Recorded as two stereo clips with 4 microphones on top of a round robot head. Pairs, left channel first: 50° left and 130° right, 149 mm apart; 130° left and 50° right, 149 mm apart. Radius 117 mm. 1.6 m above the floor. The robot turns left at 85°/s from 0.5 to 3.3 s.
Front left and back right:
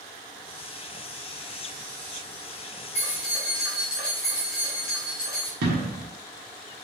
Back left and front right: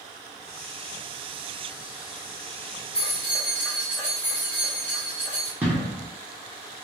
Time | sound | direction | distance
3.0 | keys jangling | 85° left | 0.7 m
5.6 | an explosion | 125° right | 1.2 m